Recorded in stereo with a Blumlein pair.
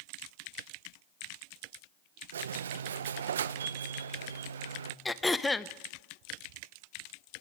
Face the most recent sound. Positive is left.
turn(degrees=10)